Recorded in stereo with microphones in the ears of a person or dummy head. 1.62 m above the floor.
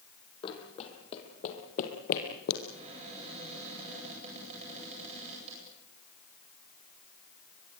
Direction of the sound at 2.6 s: 35° right (ahead or behind).